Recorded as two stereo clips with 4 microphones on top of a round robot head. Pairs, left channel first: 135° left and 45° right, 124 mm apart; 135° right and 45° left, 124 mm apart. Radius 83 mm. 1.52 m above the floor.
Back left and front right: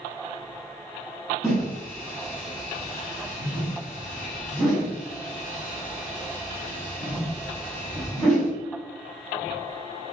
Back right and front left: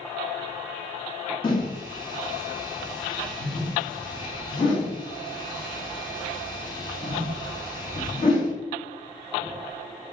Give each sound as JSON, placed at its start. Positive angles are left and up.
{"t": 1.4, "sound": "a whoosh", "azimuth_deg": -135, "distance_m": 1.0}